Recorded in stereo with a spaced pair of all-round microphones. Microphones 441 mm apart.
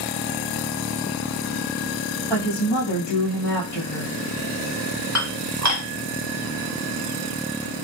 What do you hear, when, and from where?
2.3 s a woman speaking: 85° left, 1.2 m
5.2 s dishes clattering: 40° right (ahead or behind), 0.9 m